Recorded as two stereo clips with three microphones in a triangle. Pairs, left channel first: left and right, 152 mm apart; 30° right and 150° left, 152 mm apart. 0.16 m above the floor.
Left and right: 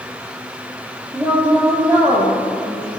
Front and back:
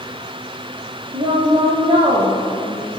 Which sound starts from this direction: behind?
A woman speaking, at 1.1 s.